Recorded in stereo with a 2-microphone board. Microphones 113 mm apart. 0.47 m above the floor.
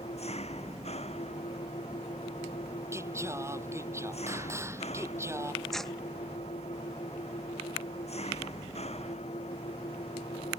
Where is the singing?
25° right (ahead or behind).